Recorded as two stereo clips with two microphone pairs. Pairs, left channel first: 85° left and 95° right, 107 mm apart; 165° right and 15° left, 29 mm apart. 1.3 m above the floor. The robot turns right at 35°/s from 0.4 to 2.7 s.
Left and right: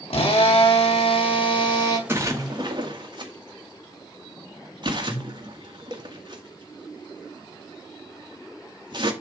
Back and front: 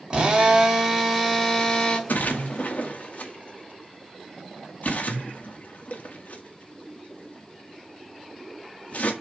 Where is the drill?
80° left, 2.5 m; by 2.0 s 135° left, 2.5 m.